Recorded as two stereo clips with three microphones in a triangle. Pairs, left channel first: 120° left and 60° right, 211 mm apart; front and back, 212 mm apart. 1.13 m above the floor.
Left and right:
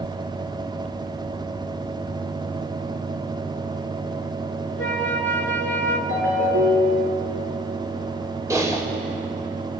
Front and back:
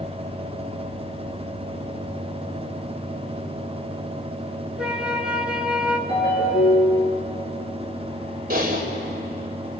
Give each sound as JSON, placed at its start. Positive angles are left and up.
{"t": 4.8, "sound": "a flute", "azimuth_deg": 95, "distance_m": 1.7}
{"t": 6.1, "sound": "a ringtone", "azimuth_deg": -70, "distance_m": 7.0}
{"t": 8.5, "sound": "typing on a keyboard", "azimuth_deg": -135, "distance_m": 3.0}